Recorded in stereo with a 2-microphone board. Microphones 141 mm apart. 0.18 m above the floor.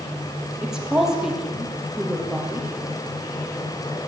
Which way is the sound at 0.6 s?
5° right (ahead or behind).